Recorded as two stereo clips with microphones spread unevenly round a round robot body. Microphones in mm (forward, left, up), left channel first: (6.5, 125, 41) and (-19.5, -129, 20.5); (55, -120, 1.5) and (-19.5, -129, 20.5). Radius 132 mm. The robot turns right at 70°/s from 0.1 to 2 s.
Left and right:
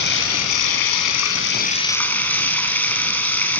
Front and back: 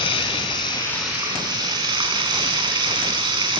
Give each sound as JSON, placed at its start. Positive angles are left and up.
{"t": 0.0, "sound": "running water", "azimuth_deg": 35, "distance_m": 3.5}